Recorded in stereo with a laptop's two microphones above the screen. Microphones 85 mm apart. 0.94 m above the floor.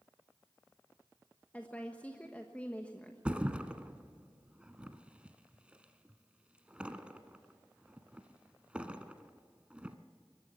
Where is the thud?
15° right (ahead or behind), 1.3 m.